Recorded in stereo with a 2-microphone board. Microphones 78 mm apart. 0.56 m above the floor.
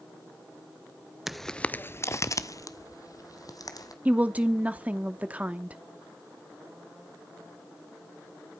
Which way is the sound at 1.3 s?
5° right (ahead or behind).